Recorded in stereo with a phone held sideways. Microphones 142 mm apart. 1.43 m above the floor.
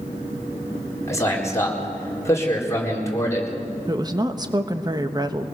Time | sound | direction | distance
1.1 | a man speaking | 20° left (ahead or behind) | 4.5 m
3.9 | a woman speaking | 30° right (ahead or behind) | 1.2 m